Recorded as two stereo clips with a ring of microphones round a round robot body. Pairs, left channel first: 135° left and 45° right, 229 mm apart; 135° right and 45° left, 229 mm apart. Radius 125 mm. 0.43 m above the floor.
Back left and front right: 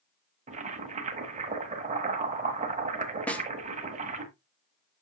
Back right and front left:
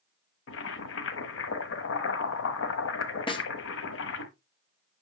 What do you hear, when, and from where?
0.5 s boiling: 105° right, 1.2 m
3.3 s a snare drum: 150° right, 1.1 m